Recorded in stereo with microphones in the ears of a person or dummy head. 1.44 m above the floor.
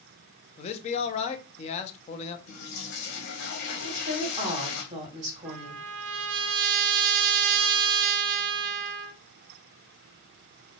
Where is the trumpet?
65° right (ahead or behind), 0.6 m.